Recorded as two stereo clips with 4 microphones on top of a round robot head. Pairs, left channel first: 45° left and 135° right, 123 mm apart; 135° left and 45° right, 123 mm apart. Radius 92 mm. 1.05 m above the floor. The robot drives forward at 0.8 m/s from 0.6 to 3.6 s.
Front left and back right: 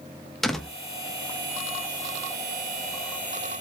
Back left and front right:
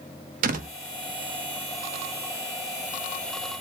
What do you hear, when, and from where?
0.4 s a door slam: 45° right, 1.2 m; by 0.7 s 50° right, 1.1 m